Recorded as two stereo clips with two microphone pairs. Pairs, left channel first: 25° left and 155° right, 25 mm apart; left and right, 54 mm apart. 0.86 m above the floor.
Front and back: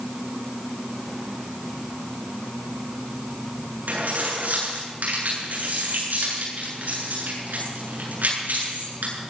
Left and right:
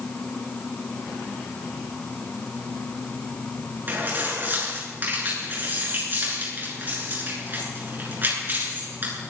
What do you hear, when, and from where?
3.9 s keys jangling: 145° right, 8.5 m